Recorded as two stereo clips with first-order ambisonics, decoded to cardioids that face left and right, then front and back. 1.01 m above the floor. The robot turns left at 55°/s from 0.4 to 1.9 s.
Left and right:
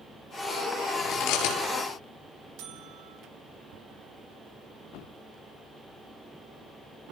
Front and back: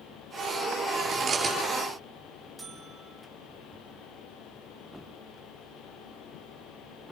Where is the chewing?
130° left, 7.5 m; by 1.6 s 95° left, 7.5 m.